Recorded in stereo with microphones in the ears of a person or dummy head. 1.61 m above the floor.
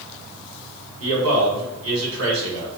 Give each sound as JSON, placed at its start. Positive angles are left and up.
{"t": 1.0, "sound": "a man speaking", "side_deg": -80, "distance_m": 1.7}